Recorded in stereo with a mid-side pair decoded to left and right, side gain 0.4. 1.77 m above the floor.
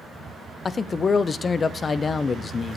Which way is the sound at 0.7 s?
40° left.